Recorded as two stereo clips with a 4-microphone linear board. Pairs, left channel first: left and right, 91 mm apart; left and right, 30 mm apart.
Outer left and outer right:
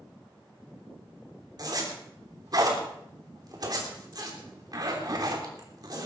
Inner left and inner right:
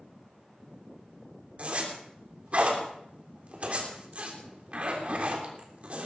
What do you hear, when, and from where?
1.6 s a zipper: 45° right (ahead or behind), 3.5 m